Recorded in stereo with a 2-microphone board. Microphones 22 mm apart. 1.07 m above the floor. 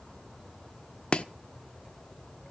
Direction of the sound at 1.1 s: 45° left (ahead or behind).